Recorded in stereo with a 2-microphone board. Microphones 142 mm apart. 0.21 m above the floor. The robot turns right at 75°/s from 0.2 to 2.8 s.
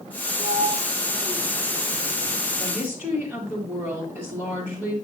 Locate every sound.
0.4 s a sliding door: 60° right (ahead or behind), 0.8 m; by 2.4 s 85° left, 0.8 m
2.6 s a woman speaking: 5° left (ahead or behind), 4 m; by 5.0 s 10° right (ahead or behind), 4 m